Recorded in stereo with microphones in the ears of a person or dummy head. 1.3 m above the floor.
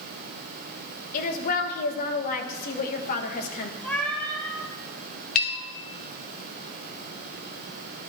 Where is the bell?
45° left (ahead or behind), 0.8 m.